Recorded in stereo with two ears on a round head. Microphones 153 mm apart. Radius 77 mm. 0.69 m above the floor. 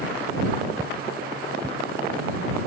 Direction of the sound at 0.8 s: 10° right (ahead or behind).